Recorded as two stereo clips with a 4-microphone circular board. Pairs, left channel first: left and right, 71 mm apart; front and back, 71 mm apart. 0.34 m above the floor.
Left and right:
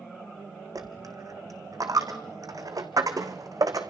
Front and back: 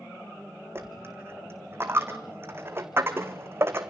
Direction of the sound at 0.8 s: 125° right.